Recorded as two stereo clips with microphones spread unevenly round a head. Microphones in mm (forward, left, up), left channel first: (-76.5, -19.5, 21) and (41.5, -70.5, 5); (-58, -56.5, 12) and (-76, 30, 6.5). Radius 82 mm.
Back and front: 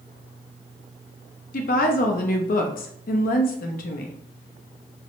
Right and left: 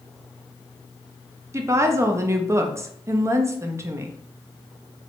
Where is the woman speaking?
155° left, 0.6 m.